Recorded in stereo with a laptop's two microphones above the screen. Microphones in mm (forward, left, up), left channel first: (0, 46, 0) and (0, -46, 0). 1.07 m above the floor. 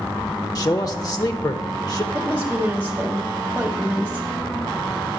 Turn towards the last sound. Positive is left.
turn(degrees=-20)  # may be behind; listen again after turning